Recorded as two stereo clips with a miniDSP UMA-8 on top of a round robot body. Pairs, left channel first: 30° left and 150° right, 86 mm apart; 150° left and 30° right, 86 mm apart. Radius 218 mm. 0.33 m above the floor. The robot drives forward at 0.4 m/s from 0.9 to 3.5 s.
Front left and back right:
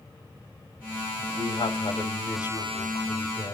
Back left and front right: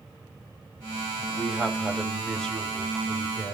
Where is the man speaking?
55° left, 2.5 m; by 3.5 s 75° left, 2 m.